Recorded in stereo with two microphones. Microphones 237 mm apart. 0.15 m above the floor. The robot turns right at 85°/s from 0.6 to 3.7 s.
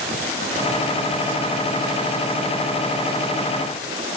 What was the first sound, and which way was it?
Only background noise.